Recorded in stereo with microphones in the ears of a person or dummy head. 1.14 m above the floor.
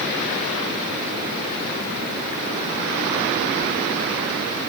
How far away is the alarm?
No alarm in this recording.